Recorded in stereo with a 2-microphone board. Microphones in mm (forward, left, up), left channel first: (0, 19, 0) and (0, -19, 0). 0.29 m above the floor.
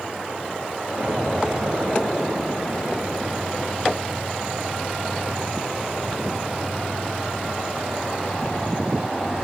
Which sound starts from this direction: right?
An explosion, at 1.0 s.